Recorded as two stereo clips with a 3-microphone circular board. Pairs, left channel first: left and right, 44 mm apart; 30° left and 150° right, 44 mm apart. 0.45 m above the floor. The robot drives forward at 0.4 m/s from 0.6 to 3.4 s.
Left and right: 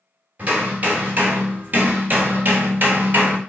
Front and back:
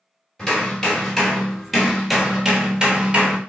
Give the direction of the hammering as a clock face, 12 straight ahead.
1 o'clock.